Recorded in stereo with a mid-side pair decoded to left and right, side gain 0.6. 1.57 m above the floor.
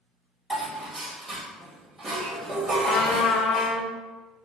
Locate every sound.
0.5 s dishes clattering: 20° right, 1.8 m
2.9 s a trumpet: 55° left, 0.6 m